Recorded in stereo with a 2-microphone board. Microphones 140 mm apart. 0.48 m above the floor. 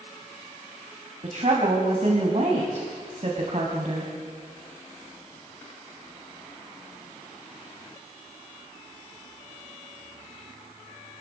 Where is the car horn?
I don't hear a car horn.